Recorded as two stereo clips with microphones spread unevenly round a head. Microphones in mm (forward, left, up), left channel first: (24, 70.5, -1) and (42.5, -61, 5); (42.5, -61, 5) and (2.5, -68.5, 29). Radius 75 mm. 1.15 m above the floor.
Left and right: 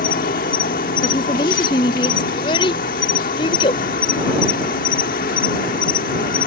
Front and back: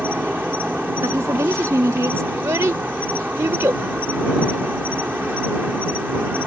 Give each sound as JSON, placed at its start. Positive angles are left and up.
{"t": 0.0, "sound": "an insect", "azimuth_deg": 130}
{"t": 1.0, "sound": "a woman speaking", "azimuth_deg": 165}
{"t": 2.3, "sound": "a child speaking", "azimuth_deg": 160}